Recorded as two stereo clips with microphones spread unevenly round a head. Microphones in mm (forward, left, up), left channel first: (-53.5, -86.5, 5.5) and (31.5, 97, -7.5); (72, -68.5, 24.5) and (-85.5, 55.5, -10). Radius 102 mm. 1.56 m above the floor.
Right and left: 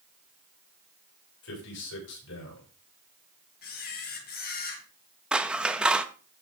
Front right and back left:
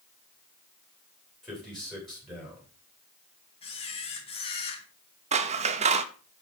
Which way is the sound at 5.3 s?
155° left.